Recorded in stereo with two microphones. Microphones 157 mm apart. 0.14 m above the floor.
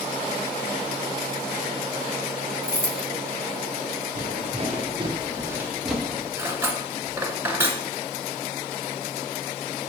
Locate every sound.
2.6 s keys jangling: 15° left (ahead or behind), 0.9 m
4.2 s footsteps: 50° right (ahead or behind), 2 m; by 6.3 s 10° left (ahead or behind), 1.7 m
6.4 s cutlery clinking: 15° right (ahead or behind), 0.9 m